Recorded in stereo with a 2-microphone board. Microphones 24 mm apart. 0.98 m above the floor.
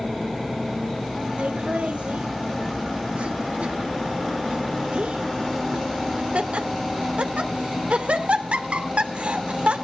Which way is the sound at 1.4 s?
75° right (ahead or behind).